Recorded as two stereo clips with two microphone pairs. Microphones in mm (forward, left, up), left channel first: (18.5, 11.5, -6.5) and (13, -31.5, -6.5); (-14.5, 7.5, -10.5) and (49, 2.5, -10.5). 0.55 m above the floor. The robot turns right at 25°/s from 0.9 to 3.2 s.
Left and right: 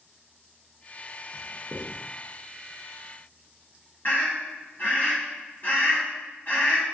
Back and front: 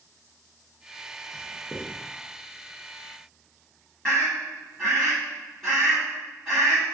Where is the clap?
I don't hear a clap.